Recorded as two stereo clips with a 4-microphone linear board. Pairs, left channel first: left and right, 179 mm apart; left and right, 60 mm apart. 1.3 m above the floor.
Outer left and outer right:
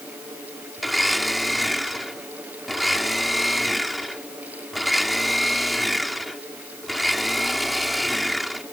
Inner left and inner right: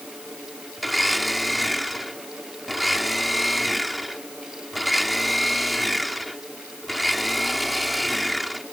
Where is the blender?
Centre (ahead or behind).